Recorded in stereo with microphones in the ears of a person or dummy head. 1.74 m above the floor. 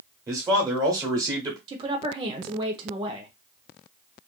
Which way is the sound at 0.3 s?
25° right (ahead or behind).